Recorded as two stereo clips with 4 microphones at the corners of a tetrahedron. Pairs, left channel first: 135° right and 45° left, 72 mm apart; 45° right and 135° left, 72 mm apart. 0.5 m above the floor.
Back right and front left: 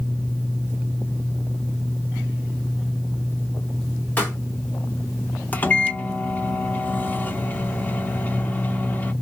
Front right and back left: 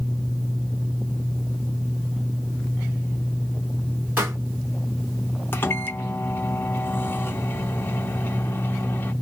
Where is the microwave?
85° right, 0.5 m.